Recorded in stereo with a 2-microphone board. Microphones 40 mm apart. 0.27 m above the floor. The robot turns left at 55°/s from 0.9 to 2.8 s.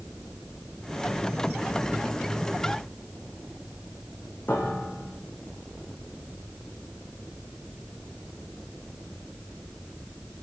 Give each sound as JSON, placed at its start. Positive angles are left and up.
{"t": 4.5, "sound": "a piano", "side_deg": 45, "distance_m": 5.0}